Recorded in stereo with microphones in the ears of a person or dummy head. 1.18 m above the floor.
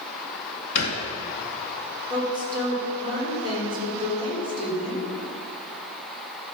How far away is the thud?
About 2 m.